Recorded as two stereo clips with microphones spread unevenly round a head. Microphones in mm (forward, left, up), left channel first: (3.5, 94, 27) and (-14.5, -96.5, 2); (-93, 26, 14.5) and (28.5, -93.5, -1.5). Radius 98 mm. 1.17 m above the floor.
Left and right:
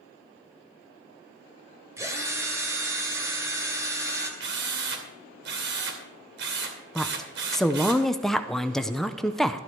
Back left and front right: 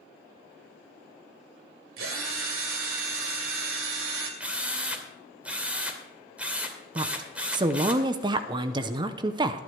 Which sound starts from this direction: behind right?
A drill, at 4.4 s.